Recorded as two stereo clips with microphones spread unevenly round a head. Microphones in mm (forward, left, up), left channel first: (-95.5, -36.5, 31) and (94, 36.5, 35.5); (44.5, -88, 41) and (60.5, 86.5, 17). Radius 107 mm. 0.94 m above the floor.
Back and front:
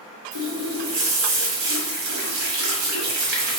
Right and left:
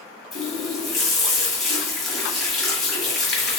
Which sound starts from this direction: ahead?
A running tap, at 0.3 s.